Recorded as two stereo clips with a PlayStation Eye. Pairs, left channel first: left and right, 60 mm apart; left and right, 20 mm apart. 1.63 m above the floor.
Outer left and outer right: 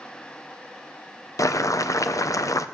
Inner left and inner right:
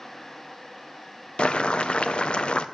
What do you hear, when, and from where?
1.4 s boiling: 75° left (ahead or behind), 0.6 m